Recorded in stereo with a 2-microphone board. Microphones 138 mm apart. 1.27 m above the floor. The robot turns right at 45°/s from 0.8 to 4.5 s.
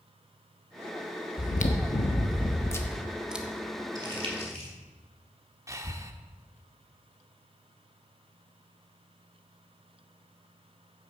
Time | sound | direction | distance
1.4 | chewing | 100° left | 1.2 m
4.0 | crumpling | 30° right (ahead or behind) | 2.5 m
5.7 | breathing | 25° right (ahead or behind) | 0.9 m